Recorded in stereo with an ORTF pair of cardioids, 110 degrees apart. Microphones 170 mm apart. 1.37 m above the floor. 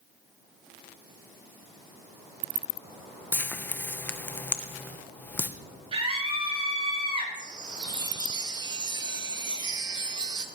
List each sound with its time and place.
3.3 s frying: 10° left, 1.0 m
5.9 s a scream: 35° right, 6 m
7.3 s a chime: 25° right, 1.2 m